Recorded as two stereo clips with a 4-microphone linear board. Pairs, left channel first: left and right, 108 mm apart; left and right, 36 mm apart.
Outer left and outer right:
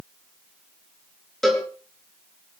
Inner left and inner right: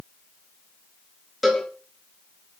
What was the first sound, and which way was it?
A cowbell, centre (ahead or behind).